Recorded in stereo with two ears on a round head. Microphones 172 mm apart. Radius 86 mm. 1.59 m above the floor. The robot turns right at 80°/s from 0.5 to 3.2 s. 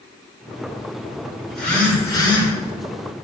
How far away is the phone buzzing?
About 3.5 m.